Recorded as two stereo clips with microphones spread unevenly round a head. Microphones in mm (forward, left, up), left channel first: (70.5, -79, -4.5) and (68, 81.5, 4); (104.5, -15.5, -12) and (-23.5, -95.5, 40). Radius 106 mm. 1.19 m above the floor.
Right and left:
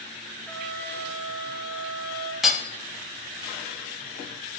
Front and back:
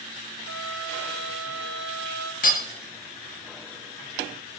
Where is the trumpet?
165° right, 1.1 m.